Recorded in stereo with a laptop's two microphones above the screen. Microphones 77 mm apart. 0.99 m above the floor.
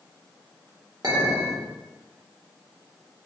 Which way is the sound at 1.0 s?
55° right (ahead or behind).